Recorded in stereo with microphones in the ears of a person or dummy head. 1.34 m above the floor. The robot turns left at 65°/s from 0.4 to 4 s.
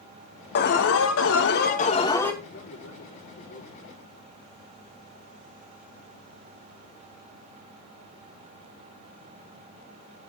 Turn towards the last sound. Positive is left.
turn(degrees=35)